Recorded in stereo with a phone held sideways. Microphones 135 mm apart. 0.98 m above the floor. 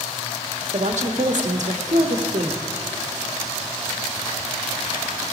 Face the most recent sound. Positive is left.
turn(degrees=-60)  # may be behind; listen again after turning